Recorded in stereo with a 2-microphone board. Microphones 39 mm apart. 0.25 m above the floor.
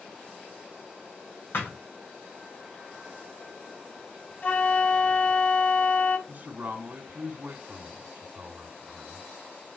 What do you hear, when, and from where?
1.5 s a thud: 55° left (ahead or behind), 4.5 m
4.4 s a flute: 40° left (ahead or behind), 1.3 m
6.3 s a man speaking: 40° right (ahead or behind), 2.5 m